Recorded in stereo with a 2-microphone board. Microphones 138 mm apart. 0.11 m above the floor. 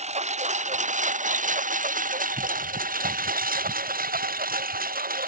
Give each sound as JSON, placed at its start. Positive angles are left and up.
{"t": 0.0, "sound": "a lawn mower", "side_deg": -50}